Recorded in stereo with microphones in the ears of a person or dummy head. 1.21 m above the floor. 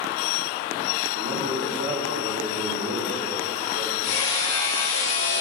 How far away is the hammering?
About 3 m.